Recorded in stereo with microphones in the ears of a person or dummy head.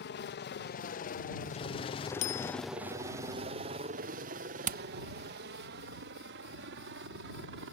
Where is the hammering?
40° right (ahead or behind).